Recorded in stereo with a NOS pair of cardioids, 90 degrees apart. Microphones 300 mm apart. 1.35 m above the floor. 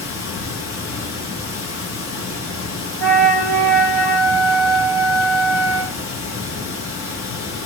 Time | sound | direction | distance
0.0 | running water | 45° left | 0.9 m
3.0 | a flute | 55° left | 1.3 m